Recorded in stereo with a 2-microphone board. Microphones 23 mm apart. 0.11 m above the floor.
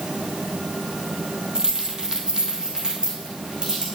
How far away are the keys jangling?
About 2.0 m.